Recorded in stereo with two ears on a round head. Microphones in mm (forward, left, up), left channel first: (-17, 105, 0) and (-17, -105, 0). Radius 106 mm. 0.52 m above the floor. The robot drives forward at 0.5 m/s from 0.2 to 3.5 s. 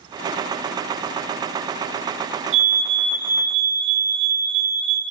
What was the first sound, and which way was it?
A fire alarm, 60° right (ahead or behind).